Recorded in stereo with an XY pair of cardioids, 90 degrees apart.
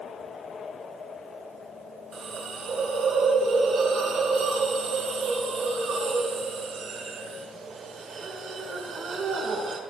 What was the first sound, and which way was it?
A hiss, 65° right.